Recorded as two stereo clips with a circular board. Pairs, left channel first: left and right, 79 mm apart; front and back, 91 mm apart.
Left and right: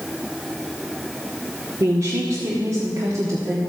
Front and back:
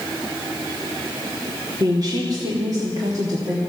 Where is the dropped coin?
No dropped coin in this recording.